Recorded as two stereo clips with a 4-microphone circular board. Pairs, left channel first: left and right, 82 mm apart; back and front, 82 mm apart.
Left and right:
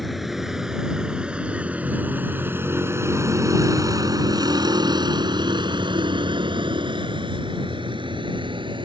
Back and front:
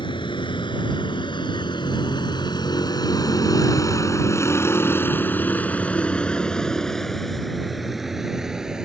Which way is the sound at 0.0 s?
Straight behind.